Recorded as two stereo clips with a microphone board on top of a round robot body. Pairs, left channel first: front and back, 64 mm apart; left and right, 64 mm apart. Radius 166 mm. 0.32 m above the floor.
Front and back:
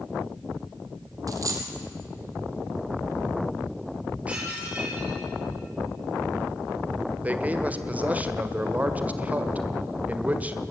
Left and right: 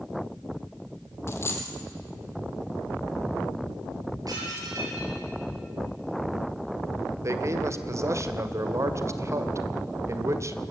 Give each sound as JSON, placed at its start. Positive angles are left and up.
{"t": 1.3, "sound": "a dropped coin", "azimuth_deg": 145, "distance_m": 2.0}
{"t": 4.3, "sound": "dishes clattering", "azimuth_deg": -110, "distance_m": 6.5}
{"t": 7.2, "sound": "a man speaking", "azimuth_deg": -120, "distance_m": 1.9}